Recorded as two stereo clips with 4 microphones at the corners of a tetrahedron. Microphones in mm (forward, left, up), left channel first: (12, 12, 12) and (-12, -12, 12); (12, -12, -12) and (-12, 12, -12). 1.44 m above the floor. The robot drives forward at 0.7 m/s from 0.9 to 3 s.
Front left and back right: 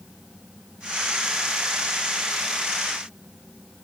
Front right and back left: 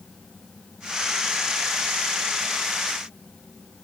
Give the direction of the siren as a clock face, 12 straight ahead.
No siren in this recording.